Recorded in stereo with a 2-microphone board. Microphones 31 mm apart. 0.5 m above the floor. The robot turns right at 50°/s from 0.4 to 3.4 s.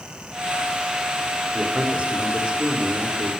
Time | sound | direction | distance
1.5 | a man speaking | 105° right | 1.4 m